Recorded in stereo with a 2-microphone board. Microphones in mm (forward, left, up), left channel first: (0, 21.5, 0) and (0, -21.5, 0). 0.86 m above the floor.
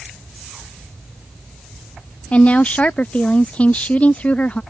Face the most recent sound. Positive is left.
turn(degrees=30)  # may be behind; listen again after turning